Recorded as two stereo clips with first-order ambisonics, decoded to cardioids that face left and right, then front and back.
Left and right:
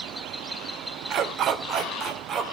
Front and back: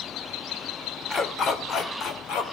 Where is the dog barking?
60° right, 1.7 m; by 2.4 s 30° right, 2 m.